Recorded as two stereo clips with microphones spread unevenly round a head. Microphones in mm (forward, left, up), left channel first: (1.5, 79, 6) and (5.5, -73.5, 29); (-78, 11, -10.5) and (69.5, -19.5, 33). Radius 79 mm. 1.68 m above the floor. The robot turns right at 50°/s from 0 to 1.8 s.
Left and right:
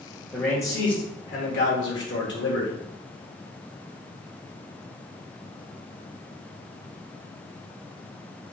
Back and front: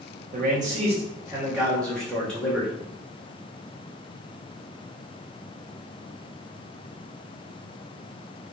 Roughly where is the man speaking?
Ahead.